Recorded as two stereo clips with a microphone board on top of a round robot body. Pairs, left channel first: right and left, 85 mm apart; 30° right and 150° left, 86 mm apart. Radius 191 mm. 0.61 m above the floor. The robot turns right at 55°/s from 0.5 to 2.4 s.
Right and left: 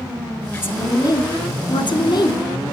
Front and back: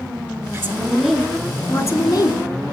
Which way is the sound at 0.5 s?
160° right.